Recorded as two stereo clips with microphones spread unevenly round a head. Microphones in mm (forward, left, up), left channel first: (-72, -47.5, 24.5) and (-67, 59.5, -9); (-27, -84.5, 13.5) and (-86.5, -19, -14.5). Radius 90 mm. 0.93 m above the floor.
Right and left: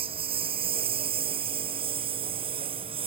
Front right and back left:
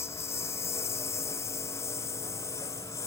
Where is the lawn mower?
25° left.